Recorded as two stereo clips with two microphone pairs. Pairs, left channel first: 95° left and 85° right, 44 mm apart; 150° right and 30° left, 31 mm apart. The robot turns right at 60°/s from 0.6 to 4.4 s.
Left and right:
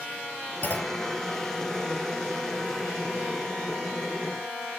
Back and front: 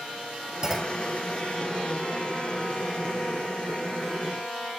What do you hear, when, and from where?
0.6 s a clunk: 95° left; by 1.0 s 120° left